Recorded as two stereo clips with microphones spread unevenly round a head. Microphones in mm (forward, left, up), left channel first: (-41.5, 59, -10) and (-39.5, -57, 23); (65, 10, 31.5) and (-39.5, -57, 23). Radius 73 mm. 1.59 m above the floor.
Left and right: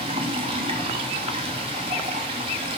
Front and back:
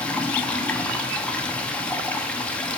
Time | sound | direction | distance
0.0 | running water | 45° right | 0.7 m